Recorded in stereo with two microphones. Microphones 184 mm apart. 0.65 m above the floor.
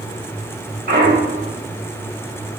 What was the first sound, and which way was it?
A clunk, 60° right (ahead or behind).